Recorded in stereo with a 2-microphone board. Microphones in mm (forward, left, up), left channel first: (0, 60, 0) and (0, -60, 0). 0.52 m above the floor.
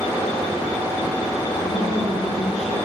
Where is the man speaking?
80° left, 6.5 m.